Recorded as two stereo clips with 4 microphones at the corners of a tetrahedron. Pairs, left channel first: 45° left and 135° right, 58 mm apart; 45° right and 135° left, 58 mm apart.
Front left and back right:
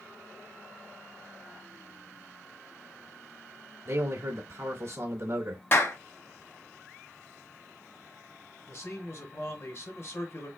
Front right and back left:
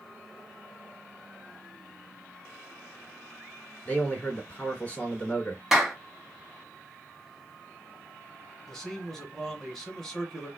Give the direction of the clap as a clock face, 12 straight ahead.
10 o'clock.